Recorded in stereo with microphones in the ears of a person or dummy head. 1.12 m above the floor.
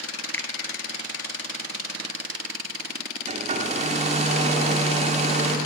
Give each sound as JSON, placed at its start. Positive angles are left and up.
{"t": 0.3, "sound": "a finger snap", "side_deg": 5, "distance_m": 0.6}
{"t": 3.3, "sound": "a hair dryer", "side_deg": -25, "distance_m": 1.0}